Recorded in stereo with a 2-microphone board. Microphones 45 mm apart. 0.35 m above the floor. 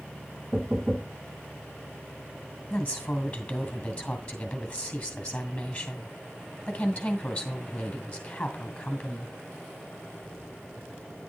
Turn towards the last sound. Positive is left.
turn(degrees=25)  # may be behind; listen again after turning